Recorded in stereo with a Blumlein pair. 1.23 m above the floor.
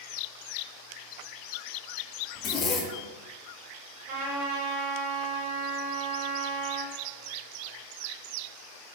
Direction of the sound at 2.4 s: 25° left.